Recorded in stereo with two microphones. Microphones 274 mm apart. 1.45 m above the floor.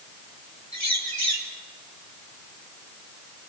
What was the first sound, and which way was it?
A bird, 75° right (ahead or behind).